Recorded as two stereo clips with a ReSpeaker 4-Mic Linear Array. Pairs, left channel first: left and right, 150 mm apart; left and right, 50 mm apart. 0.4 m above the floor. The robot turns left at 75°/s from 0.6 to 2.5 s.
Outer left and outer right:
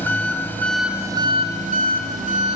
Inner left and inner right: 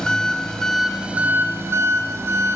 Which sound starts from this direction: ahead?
An engine running, at 0.0 s.